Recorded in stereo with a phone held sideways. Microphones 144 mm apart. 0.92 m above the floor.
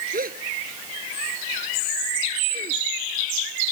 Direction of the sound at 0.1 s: 85° right.